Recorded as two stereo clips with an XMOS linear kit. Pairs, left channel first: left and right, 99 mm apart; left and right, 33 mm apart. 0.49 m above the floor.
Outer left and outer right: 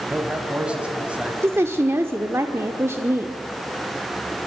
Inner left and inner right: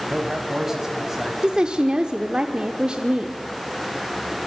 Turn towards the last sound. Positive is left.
turn(degrees=-25)  # may be behind; listen again after turning